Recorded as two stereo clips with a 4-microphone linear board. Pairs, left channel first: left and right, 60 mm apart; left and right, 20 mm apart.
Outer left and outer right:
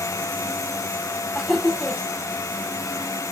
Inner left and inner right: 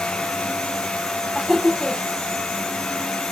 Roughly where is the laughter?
Centre.